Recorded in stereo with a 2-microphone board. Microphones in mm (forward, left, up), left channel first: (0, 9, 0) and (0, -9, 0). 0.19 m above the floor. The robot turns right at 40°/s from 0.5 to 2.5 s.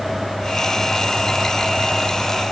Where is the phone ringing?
I don't hear a phone ringing.